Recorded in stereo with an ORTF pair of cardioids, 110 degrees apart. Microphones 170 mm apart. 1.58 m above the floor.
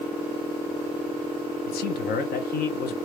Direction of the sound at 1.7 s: 65° left.